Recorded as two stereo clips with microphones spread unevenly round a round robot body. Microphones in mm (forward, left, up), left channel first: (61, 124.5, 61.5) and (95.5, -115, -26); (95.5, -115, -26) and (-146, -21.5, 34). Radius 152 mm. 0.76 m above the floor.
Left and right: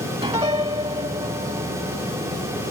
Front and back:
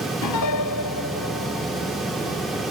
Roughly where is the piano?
Ahead.